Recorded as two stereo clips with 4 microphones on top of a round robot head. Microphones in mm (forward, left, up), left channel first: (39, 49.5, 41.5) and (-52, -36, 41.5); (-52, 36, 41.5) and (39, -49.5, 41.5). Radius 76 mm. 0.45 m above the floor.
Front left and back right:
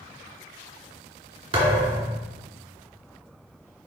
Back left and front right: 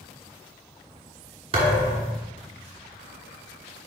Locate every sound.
1.5 s a thud: 90° right, 2.5 m